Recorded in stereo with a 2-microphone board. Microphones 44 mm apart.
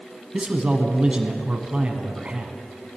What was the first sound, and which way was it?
A man speaking, 25° right (ahead or behind).